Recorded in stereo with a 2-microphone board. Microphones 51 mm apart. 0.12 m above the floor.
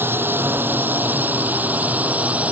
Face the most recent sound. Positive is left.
turn(degrees=-30)  # may be behind; listen again after turning